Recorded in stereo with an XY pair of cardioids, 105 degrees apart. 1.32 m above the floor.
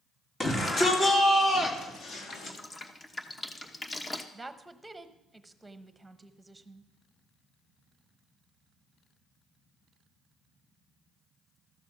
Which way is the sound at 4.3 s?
15° right.